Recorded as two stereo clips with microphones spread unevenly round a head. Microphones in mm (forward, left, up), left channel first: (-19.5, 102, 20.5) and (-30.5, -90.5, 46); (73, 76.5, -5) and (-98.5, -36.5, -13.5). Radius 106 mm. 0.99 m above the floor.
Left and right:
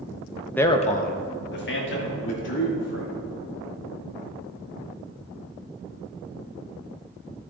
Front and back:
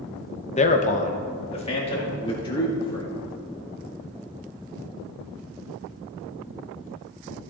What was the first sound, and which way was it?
A man speaking, 30° left.